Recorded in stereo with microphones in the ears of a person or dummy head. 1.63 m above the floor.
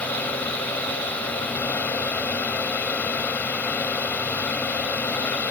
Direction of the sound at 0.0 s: 10° left (ahead or behind).